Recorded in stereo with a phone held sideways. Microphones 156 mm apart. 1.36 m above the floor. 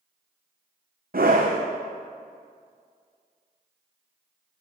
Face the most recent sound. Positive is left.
turn(degrees=-70)  # may be behind; listen again after turning